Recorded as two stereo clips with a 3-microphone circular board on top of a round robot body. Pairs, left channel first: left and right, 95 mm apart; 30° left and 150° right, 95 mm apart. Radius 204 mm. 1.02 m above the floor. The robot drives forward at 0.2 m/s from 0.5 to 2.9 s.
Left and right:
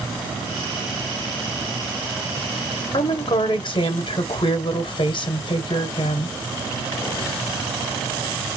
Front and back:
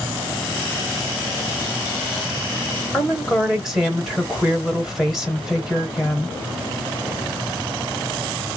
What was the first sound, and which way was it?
A woman speaking, 125° left.